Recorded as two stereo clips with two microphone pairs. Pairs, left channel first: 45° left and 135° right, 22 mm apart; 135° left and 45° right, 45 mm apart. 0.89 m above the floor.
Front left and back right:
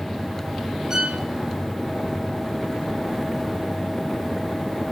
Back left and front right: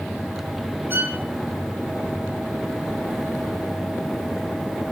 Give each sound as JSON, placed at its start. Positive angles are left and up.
{"t": 0.9, "sound": "a violin", "azimuth_deg": -75, "distance_m": 3.5}